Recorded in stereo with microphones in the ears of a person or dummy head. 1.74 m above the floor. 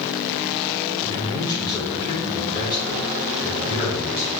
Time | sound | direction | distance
1.0 | a man speaking | 20° left (ahead or behind) | 5 m